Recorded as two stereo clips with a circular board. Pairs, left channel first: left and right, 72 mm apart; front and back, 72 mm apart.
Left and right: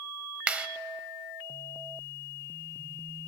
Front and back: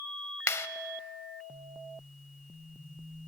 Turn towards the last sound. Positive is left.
turn(degrees=-25)